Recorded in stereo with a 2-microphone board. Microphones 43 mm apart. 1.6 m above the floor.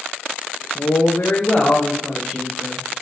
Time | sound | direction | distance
0.8 | a woman speaking | 80° left | 1.0 m